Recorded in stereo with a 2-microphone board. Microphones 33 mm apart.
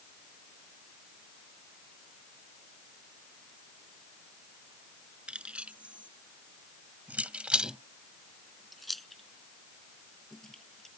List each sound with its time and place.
5.3 s keys jangling: 35° right (ahead or behind); by 10.9 s 15° left (ahead or behind)